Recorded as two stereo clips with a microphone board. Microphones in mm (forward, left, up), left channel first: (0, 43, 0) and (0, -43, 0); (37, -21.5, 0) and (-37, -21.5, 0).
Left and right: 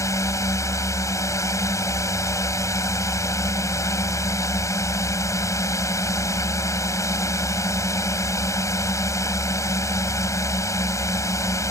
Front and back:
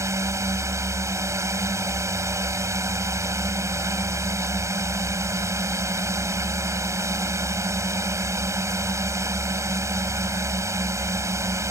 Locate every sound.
0.0 s a drone: 140° left